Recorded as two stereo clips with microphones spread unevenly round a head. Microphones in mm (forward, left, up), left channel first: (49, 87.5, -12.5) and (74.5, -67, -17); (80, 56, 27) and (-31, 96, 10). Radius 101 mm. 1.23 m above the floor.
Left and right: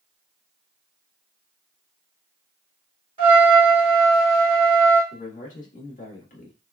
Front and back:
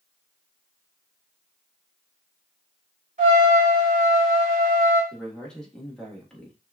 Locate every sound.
3.2 s a trumpet: 145° right, 2.5 m
5.1 s a man speaking: 65° left, 1.7 m